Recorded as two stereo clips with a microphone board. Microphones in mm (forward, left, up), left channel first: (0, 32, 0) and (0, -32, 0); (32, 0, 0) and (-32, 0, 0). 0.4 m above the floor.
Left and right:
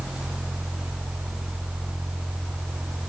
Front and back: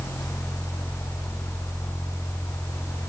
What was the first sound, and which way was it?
Only background noise.